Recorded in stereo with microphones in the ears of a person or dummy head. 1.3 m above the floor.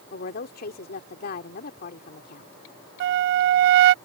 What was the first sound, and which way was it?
A woman speaking, 50° left (ahead or behind).